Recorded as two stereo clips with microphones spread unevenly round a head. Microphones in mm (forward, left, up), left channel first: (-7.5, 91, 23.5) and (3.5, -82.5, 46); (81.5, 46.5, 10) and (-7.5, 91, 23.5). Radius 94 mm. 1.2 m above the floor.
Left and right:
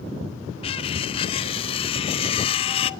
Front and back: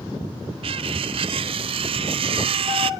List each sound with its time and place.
0.6 s cutlery clinking: 155° left, 0.5 m